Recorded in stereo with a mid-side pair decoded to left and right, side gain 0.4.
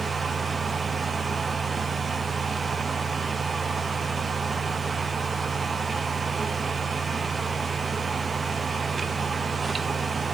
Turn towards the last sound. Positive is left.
turn(degrees=-30)